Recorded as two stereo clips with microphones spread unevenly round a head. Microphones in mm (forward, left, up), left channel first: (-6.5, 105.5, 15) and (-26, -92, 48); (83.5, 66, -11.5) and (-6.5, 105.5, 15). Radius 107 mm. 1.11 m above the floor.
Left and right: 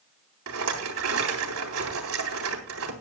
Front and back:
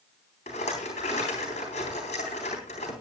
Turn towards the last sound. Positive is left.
turn(degrees=-75)